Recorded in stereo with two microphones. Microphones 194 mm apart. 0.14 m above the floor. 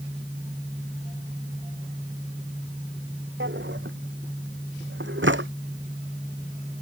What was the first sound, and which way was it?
A drawer, 80° right.